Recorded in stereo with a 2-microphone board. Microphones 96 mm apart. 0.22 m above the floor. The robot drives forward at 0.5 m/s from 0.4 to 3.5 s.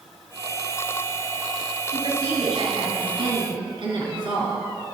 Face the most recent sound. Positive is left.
turn(degrees=-65)  # may be behind; listen again after turning